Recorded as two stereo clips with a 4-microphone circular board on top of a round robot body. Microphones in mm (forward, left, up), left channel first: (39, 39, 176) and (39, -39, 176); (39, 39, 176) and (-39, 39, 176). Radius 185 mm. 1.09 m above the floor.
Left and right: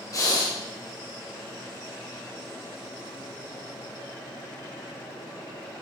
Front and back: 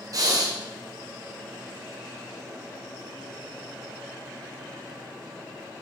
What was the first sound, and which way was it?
Breathing, 140° left.